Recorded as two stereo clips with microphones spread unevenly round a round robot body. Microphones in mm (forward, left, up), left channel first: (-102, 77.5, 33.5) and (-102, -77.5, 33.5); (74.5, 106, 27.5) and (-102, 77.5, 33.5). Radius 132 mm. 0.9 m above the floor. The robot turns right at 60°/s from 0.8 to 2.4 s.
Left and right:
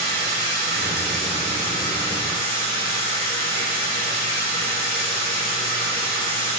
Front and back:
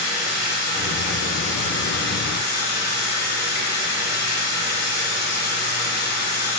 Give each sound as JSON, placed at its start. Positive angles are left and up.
{"t": 0.0, "sound": "running water", "azimuth_deg": -55, "distance_m": 2.5}